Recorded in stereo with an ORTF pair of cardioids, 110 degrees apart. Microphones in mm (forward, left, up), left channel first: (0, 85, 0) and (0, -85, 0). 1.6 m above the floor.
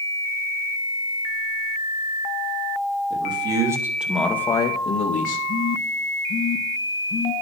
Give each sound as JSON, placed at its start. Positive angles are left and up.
{"t": 3.1, "sound": "a man speaking", "azimuth_deg": -30, "distance_m": 3.0}
{"t": 5.5, "sound": "a phone buzzing", "azimuth_deg": 25, "distance_m": 1.9}